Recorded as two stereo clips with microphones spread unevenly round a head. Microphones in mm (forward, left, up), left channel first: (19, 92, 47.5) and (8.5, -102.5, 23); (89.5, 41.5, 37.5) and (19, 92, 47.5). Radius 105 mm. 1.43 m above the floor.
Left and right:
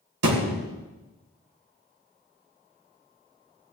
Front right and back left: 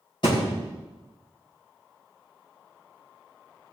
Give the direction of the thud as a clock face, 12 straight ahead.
4 o'clock.